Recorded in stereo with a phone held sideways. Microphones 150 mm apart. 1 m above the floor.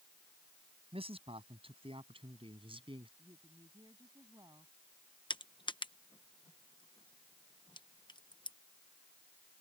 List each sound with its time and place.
0.9 s a man speaking: 40° right (ahead or behind); by 3.1 s 35° right (ahead or behind)
3.2 s a woman speaking: 25° right (ahead or behind)
5.3 s crushing: 30° left (ahead or behind)